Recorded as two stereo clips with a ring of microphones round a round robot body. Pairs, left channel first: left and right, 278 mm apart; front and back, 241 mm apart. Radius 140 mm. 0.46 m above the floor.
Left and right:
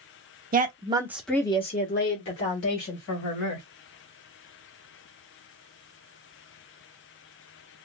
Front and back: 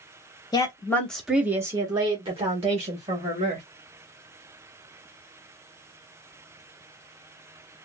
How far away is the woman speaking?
About 1.0 m.